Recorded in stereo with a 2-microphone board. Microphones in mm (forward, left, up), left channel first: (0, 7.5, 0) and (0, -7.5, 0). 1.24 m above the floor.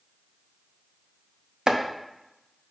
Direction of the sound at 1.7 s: 45° right (ahead or behind).